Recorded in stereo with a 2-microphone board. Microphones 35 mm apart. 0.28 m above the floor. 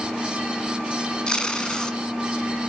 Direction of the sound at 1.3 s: 25° left (ahead or behind).